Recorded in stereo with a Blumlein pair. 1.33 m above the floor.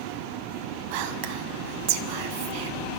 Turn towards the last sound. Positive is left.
turn(degrees=-45)